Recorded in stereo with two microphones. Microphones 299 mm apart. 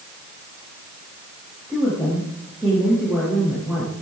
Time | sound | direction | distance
1.7 | a woman speaking | 5° right (ahead or behind) | 8.5 m